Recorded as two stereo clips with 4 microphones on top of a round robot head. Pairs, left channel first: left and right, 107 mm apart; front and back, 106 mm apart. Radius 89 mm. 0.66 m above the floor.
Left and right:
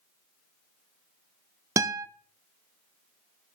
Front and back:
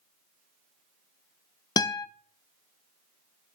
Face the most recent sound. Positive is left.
turn(degrees=-40)